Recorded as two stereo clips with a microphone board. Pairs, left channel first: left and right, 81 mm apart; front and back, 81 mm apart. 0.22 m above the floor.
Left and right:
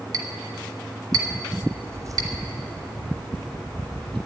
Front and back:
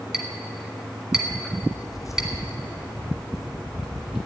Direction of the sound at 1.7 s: 20° right.